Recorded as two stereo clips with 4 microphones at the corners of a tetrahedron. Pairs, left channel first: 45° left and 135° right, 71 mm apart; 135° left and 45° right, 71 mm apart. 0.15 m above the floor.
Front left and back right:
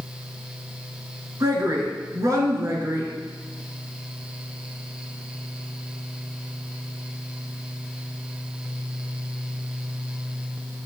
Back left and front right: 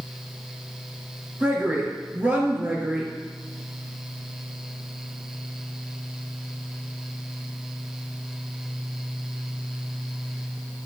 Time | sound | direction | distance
1.4 | a woman speaking | 105° right | 2.5 m